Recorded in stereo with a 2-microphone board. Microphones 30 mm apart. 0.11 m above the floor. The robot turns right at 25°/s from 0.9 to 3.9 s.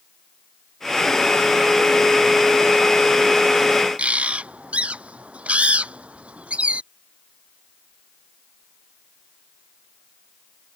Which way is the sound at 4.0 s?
45° right (ahead or behind).